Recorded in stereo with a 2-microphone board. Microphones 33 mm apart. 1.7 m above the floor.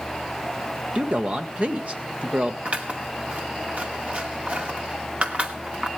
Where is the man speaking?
40° right (ahead or behind), 1.3 m.